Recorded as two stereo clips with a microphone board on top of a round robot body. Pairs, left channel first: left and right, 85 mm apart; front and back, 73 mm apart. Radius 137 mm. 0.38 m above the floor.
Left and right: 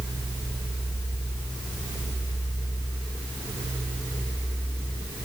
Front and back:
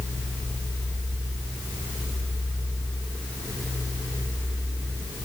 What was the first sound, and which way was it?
Only background noise.